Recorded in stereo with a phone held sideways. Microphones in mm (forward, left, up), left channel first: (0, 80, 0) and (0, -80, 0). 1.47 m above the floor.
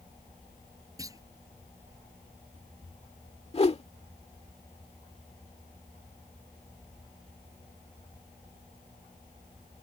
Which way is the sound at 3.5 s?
35° left (ahead or behind).